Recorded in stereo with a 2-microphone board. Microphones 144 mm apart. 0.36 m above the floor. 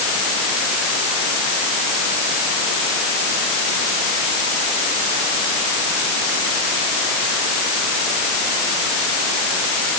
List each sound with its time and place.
Only background noise.